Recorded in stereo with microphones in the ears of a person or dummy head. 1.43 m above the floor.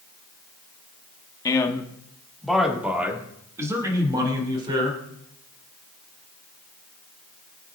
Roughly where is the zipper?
No zipper in this recording.